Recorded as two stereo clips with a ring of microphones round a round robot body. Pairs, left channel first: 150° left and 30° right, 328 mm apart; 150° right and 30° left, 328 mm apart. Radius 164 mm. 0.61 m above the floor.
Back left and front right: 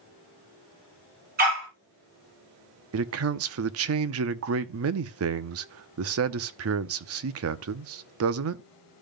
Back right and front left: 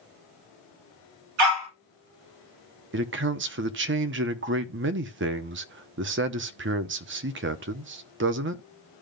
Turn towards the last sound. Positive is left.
turn(degrees=-10)